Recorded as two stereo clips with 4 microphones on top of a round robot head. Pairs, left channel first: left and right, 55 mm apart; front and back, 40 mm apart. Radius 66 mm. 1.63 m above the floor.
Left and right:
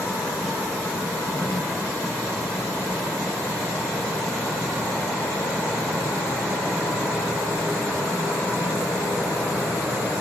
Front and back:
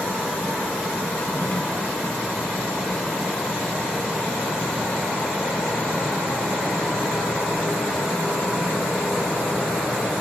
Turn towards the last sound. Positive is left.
turn(degrees=40)